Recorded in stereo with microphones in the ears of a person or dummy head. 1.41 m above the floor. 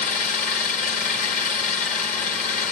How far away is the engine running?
About 1.2 m.